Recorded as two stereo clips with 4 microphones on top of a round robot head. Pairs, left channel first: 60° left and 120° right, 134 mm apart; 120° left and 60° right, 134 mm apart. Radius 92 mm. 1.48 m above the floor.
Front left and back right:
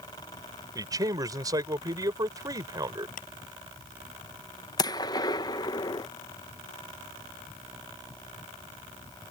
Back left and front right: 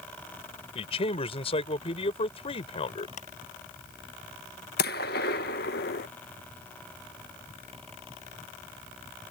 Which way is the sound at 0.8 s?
175° left.